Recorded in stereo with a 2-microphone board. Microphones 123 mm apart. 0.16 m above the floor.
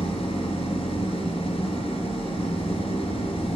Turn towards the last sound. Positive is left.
turn(degrees=55)  # may be behind; listen again after turning